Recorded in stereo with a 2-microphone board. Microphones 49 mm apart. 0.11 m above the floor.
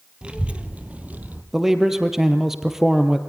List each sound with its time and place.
0.2 s a child speaking: 20° right (ahead or behind), 2 m; by 1.4 s 35° right (ahead or behind), 2.5 m
1.5 s a man speaking: 10° right (ahead or behind), 2.5 m